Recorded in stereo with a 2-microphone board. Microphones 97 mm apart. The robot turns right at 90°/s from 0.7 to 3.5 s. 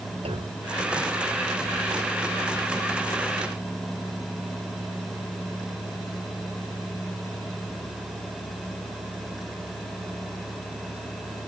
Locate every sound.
0.2 s a clunk: 85° right